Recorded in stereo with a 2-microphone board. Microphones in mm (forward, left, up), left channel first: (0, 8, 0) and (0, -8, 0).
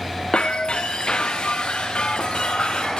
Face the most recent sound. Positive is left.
turn(degrees=75)  # may be behind; listen again after turning